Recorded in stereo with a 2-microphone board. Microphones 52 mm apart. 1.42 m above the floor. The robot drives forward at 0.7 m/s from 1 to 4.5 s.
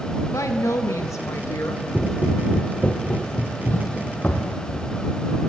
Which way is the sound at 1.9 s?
10° left (ahead or behind).